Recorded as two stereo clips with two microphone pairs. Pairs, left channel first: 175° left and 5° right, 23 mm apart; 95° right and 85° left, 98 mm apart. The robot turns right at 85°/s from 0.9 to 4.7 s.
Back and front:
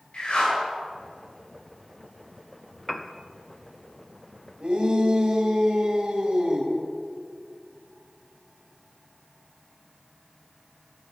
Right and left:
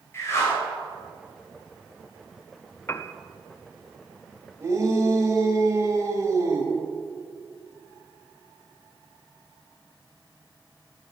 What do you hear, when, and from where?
0.1 s a whoosh: 155° right, 3.5 m
2.9 s a piano: 135° right, 0.5 m; by 3.1 s 110° right, 0.5 m
4.6 s a shout: 25° left, 3 m; by 6.7 s 35° left, 3 m